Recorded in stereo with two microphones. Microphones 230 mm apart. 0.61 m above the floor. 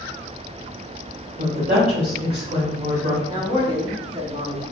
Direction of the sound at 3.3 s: 20° right (ahead or behind).